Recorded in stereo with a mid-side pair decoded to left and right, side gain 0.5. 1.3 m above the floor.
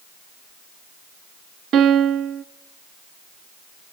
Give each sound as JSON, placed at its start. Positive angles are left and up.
{"t": 1.7, "sound": "a piano", "azimuth_deg": -65, "distance_m": 0.7}